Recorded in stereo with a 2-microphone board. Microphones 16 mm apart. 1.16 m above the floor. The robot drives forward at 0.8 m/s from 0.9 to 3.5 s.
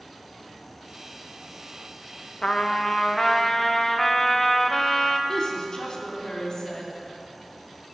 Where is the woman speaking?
55° left (ahead or behind), 3 m.